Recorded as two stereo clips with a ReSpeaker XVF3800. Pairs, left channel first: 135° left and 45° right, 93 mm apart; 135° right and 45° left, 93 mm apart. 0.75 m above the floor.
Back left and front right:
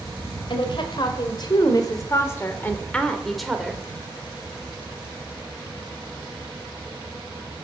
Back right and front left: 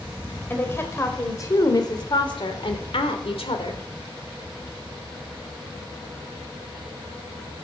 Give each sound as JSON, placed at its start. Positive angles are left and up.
{"t": 0.5, "sound": "a woman speaking", "azimuth_deg": 160, "distance_m": 3.0}